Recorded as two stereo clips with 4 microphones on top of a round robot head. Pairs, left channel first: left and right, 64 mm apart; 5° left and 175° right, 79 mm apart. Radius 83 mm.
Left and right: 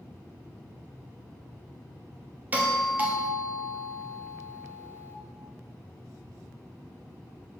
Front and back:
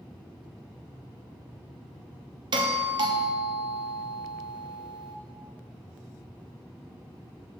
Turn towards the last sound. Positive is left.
turn(degrees=-155)